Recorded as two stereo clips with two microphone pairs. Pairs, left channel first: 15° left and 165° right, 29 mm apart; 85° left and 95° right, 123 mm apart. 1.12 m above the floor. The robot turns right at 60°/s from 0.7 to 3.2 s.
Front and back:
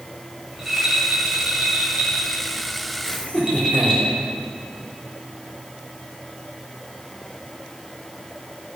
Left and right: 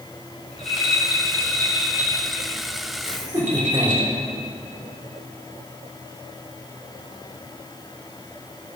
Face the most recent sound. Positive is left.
turn(degrees=-35)